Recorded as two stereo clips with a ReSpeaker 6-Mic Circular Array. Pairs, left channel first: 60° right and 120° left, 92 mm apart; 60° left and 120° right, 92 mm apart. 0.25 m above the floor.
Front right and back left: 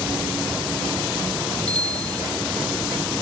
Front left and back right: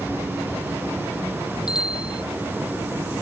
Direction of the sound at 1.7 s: 20° left.